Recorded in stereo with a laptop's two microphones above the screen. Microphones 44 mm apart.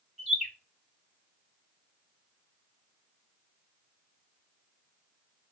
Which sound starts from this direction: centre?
A bird, at 0.2 s.